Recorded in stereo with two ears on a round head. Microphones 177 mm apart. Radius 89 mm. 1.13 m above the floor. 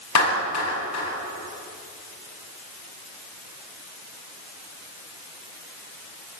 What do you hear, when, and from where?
0.1 s a clap: 85° left, 8.5 m